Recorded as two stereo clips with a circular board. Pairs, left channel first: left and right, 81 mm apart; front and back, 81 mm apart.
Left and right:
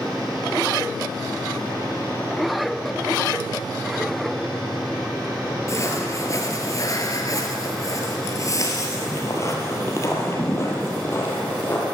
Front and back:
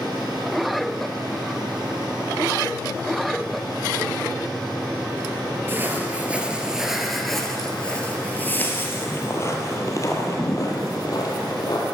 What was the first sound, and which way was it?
Footsteps, 125° left.